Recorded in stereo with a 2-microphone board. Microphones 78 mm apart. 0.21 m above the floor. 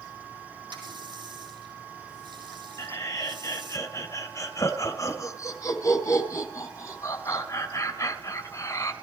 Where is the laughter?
40° left (ahead or behind), 2.0 m.